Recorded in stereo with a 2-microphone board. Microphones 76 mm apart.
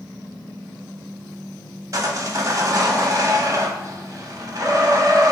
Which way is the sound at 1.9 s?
45° right (ahead or behind).